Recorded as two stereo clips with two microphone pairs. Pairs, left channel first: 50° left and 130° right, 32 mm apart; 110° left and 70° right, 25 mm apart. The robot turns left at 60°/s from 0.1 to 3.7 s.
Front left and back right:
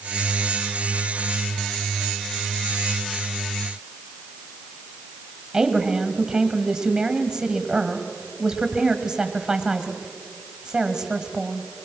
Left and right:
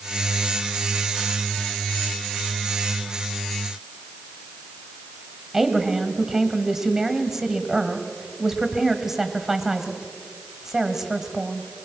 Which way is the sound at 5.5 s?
110° right.